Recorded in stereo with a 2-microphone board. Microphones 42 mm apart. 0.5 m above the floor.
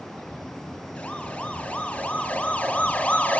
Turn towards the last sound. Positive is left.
turn(degrees=30)  # may be behind; listen again after turning